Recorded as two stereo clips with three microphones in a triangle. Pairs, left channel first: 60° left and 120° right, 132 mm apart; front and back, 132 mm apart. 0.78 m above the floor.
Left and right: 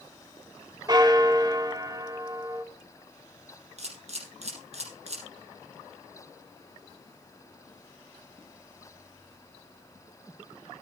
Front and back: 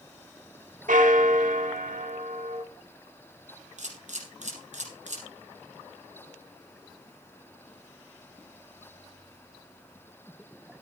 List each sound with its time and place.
0.9 s a bell: straight behind, 1.3 m
3.8 s a camera shutter: 155° right, 5 m